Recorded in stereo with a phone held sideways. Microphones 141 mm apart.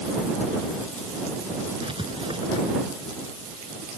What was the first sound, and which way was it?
Writing, 40° right (ahead or behind).